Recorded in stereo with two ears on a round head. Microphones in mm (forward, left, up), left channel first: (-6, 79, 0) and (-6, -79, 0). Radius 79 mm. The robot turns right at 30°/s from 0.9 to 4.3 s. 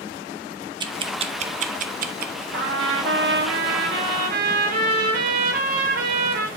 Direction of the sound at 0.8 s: 25° right (ahead or behind).